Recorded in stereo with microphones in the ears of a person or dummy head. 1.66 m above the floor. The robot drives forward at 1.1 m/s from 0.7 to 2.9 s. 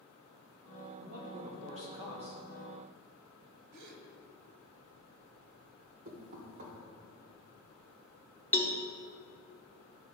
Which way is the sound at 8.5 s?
10° left (ahead or behind).